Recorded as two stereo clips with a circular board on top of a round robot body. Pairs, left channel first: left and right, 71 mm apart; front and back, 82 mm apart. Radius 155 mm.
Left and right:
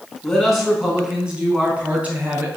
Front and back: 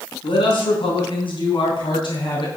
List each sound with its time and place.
0.2 s a man speaking: 5° left, 4.5 m; by 2.5 s 25° right, 5 m